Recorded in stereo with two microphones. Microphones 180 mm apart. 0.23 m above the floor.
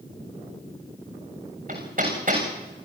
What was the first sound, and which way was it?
Hammering, 50° right (ahead or behind).